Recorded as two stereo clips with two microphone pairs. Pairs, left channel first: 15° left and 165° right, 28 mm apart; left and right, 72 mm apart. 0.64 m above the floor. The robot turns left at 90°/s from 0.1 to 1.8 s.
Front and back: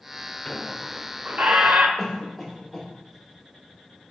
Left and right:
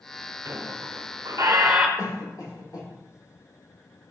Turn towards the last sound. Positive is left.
turn(degrees=95)